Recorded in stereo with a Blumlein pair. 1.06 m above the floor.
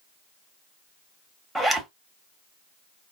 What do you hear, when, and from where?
1.6 s a zipper: 5° right, 0.7 m